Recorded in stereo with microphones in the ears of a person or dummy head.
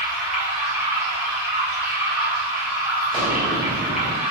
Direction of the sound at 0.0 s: 5° right (ahead or behind).